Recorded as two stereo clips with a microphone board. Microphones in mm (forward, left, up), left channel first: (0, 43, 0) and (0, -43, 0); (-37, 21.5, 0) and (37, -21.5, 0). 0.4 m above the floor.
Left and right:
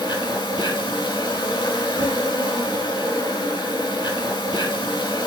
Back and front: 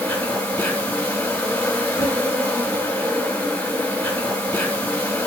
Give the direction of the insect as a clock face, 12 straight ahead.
9 o'clock.